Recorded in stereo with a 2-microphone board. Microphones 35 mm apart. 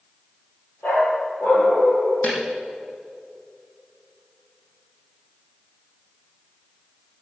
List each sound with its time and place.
0.8 s a dog barking: 65° left (ahead or behind), 4 m
2.2 s a snare drum: 50° left (ahead or behind), 4.5 m